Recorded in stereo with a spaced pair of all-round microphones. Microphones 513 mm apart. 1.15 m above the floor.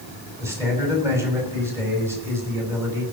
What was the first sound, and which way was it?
A man speaking, 5° right (ahead or behind).